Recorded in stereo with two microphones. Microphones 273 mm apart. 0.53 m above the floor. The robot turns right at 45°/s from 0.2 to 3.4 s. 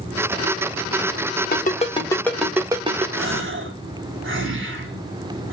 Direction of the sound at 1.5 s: 35° left (ahead or behind).